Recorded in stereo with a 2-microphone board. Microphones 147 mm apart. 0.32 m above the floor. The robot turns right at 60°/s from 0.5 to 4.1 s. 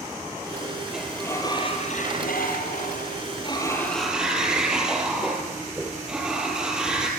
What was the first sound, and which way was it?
A sliding door, 5° right.